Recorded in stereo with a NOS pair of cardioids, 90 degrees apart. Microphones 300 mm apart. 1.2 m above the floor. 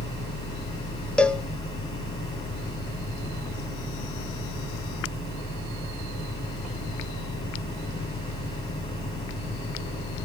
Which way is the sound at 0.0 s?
20° left.